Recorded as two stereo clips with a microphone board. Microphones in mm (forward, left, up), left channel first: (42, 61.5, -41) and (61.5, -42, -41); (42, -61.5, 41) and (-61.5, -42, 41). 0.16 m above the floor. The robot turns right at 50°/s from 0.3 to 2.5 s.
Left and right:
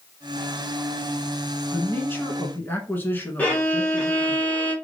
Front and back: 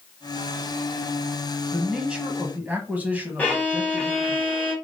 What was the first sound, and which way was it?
A man speaking, 85° left.